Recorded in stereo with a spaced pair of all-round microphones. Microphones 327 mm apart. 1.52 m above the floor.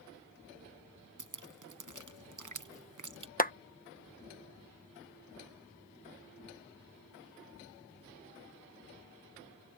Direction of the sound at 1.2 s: 65° right (ahead or behind).